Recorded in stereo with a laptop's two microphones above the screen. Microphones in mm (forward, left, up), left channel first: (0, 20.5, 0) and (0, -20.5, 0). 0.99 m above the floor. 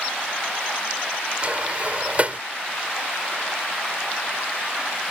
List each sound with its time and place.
1.4 s a sliding door: 30° right (ahead or behind)